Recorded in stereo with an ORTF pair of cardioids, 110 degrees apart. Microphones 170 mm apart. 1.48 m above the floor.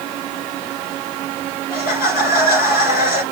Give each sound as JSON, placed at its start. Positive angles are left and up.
{"t": 1.7, "sound": "laughter", "azimuth_deg": 65, "distance_m": 6.0}